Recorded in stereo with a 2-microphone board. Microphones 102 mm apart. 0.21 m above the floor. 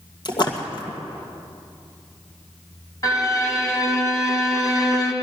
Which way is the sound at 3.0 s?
30° left (ahead or behind).